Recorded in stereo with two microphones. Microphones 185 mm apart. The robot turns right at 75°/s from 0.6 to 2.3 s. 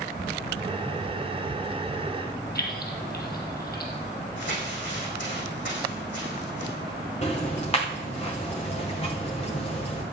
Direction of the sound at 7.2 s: 35° left (ahead or behind).